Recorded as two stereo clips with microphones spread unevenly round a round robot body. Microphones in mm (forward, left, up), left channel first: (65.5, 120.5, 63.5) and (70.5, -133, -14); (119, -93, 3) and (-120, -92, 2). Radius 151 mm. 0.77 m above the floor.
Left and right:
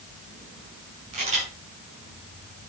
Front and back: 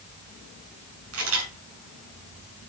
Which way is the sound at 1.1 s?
155° right.